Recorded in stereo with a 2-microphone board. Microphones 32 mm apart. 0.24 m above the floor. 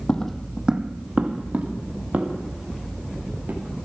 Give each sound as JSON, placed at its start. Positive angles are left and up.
{"t": 0.1, "sound": "footsteps", "side_deg": 30, "distance_m": 0.5}